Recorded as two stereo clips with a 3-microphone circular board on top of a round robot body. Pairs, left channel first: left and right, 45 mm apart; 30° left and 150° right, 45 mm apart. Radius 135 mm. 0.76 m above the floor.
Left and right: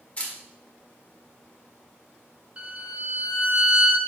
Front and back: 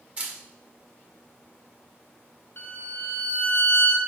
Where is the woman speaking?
I don't hear a woman speaking.